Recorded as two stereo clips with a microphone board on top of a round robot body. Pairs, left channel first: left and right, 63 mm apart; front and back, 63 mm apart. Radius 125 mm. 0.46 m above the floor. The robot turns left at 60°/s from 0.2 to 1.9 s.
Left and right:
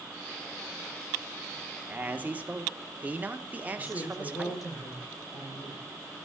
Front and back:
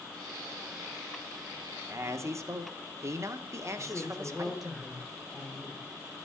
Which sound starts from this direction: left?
A woman speaking, at 3.8 s.